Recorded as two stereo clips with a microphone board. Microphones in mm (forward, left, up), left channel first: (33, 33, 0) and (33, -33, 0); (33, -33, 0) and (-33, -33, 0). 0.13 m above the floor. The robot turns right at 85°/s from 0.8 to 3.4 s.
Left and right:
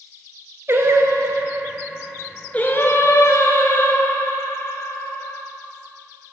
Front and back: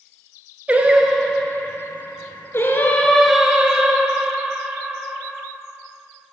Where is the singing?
120° right, 0.9 m; by 5.4 s 105° left, 0.9 m.